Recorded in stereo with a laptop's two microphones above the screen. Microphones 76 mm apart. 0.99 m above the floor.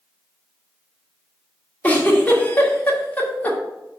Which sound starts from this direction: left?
A giggle, at 1.8 s.